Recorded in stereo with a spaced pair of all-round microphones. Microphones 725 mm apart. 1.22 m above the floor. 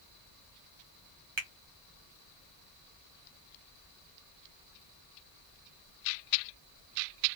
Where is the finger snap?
40° right (ahead or behind), 1.5 m.